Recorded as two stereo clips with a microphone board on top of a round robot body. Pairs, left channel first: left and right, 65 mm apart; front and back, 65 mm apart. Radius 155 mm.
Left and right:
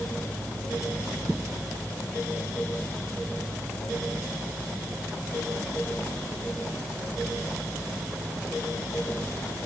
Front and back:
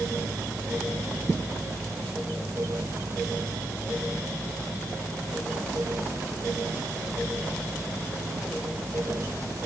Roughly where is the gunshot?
I don't hear a gunshot.